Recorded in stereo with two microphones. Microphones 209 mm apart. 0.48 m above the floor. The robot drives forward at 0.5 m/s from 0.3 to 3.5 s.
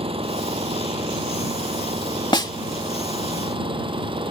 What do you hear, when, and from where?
0.0 s an engine running: 25° right (ahead or behind)
2.3 s a snare drum: 20° left (ahead or behind)